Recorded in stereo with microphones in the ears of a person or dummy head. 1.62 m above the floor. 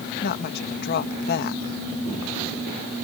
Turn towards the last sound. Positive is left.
turn(degrees=55)  # may be behind; listen again after turning